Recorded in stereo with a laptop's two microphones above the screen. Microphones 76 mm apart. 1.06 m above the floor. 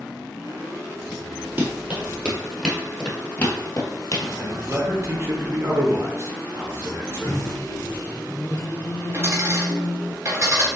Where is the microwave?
45° left (ahead or behind), 1.2 m.